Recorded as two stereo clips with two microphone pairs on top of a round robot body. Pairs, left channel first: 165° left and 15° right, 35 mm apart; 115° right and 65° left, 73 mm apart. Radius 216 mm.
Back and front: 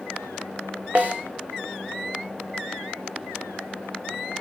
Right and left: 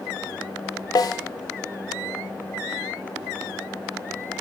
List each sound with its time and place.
0.9 s a snare drum: 70° right, 0.6 m